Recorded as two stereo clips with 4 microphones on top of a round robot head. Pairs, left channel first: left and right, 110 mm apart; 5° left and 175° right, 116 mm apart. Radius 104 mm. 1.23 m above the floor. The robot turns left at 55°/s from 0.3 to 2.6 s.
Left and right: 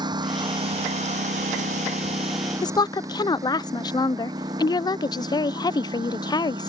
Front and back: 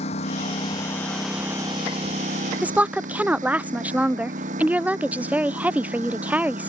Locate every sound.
0.0 s a lawn mower: 40° right; by 6.7 s 145° right
2.6 s a woman speaking: 110° left